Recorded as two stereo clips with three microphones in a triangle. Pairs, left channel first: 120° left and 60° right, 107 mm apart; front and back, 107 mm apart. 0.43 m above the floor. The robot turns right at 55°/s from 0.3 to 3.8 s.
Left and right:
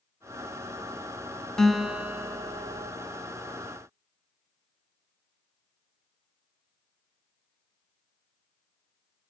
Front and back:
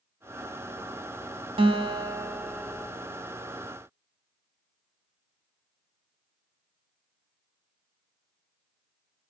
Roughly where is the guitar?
Behind right.